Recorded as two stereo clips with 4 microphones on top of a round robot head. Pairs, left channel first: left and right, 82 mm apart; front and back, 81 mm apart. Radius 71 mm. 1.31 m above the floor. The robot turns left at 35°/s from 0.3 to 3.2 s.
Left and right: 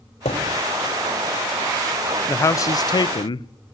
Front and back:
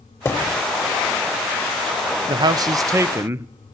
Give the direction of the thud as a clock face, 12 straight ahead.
10 o'clock.